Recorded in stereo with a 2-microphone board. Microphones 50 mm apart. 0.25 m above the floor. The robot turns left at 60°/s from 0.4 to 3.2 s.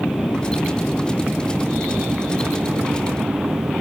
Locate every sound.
0.0 s an aircraft: 35° left (ahead or behind); by 3.8 s 55° right (ahead or behind)